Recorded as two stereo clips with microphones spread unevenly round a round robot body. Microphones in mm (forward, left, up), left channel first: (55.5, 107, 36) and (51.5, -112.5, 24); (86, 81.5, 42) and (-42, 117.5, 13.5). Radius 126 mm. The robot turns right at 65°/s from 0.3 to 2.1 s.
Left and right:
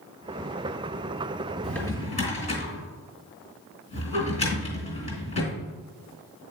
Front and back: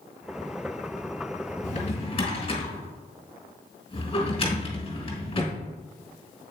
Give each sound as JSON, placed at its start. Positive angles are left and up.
{"t": 1.6, "sound": "a drawer", "azimuth_deg": 0, "distance_m": 2.5}